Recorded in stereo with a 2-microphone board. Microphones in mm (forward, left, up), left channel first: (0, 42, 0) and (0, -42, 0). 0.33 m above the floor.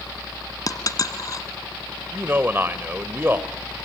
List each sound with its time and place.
0.7 s a dropped coin: 45° left (ahead or behind), 1.5 m
2.1 s a man speaking: 25° right (ahead or behind), 1.0 m